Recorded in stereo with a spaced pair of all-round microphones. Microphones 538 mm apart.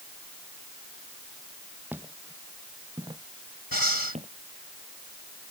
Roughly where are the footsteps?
Centre.